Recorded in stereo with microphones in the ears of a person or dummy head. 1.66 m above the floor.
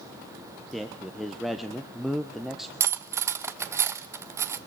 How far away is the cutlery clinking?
About 1.0 m.